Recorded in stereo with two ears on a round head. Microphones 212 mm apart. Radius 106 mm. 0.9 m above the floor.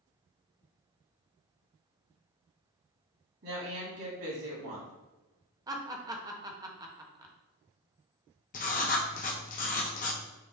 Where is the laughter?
15° right (ahead or behind), 0.6 m.